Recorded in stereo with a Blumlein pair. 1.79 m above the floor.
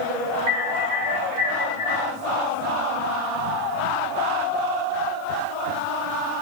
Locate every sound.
0.5 s an alarm: 35° right, 3 m